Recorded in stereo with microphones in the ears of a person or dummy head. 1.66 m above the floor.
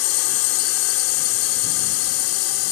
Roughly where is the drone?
Left.